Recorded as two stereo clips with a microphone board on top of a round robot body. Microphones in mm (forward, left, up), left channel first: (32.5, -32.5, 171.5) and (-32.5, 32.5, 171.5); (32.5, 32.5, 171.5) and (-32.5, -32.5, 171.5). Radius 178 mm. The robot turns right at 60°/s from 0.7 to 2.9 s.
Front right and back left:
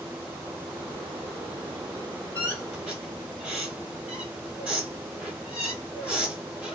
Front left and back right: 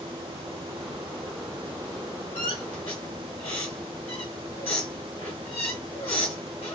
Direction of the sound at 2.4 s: 25° left.